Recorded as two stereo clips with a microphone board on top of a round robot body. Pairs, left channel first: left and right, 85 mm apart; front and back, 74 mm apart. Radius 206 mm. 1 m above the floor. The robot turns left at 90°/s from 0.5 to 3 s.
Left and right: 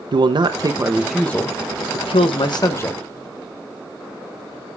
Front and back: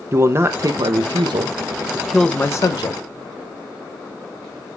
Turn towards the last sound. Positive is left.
turn(degrees=10)